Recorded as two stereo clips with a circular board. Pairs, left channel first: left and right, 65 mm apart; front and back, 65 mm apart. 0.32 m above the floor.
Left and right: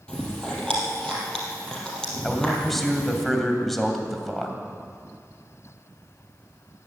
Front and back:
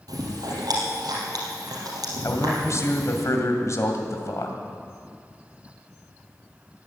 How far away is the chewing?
About 4 m.